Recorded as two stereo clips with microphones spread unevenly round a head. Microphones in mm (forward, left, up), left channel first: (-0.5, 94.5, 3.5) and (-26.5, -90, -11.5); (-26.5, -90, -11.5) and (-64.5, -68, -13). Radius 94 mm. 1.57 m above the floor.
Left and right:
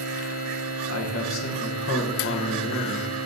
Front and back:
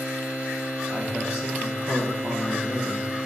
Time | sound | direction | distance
0.9 | a man speaking | 85° left | 1.2 m